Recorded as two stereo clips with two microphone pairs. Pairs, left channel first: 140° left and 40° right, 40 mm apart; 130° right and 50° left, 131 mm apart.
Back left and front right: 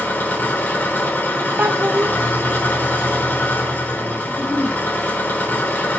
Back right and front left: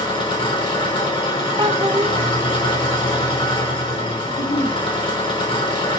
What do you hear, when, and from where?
0.0 s an engine running: straight behind, 3 m
1.6 s a child speaking: 5° right, 0.5 m
4.3 s a giggle: 120° right, 5 m